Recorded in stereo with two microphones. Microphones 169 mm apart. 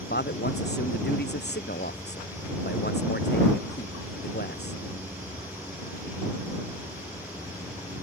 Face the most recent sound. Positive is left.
turn(degrees=85)